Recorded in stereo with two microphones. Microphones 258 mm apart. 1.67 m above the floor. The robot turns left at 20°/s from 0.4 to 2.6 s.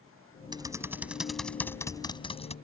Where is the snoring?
I don't hear snoring.